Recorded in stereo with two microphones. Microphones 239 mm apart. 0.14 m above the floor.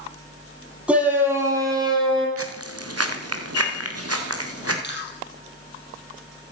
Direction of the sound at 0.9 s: 5° right (ahead or behind).